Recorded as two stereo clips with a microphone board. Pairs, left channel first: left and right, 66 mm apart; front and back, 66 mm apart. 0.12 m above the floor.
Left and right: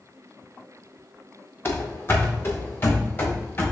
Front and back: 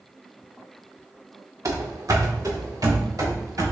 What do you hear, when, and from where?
1.6 s running footsteps: 145° left, 1.3 m; by 3.7 s 150° left, 2.5 m